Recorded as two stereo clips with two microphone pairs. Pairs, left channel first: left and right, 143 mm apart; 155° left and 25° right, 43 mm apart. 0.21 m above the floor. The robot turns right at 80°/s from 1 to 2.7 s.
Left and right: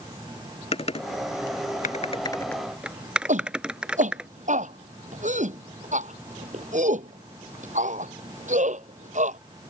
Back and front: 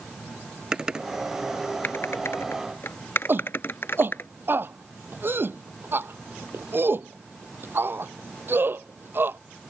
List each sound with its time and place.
0.7 s typing on a keyboard: 50° left; by 4.3 s 175° right
3.3 s a shout: 60° right